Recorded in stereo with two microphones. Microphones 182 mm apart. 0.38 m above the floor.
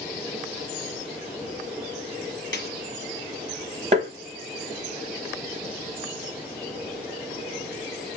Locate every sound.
2.5 s a snare drum: 80° left, 1.4 m
3.9 s tapping: 40° right (ahead or behind), 1.0 m